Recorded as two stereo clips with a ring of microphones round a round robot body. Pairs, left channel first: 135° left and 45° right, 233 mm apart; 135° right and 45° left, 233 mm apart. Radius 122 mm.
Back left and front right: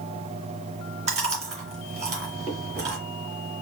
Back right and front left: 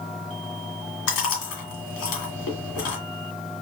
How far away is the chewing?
About 1.9 m.